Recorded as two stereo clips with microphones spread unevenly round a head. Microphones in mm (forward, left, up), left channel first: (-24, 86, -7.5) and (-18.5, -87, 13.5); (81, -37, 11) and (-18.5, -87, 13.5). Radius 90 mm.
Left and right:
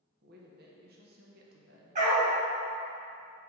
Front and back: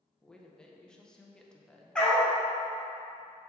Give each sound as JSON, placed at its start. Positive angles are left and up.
{"t": 0.2, "sound": "a woman speaking", "azimuth_deg": -55, "distance_m": 1.0}
{"t": 1.9, "sound": "a dog barking", "azimuth_deg": -55, "distance_m": 1.8}